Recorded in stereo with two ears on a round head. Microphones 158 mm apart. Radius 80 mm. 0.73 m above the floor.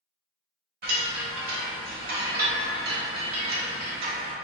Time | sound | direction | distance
0.8 | a chime | 55° right (ahead or behind) | 0.8 m